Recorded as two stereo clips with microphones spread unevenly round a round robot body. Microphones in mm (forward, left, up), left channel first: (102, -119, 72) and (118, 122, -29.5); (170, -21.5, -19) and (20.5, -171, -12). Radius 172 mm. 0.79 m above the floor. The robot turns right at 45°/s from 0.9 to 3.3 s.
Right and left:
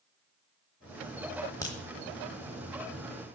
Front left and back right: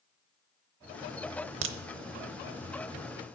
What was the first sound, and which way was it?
A crack, 155° right.